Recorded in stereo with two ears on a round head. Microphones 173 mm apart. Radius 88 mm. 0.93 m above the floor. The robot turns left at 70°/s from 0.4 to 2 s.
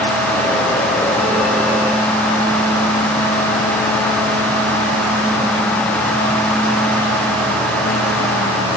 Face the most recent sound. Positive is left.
No sound to turn to.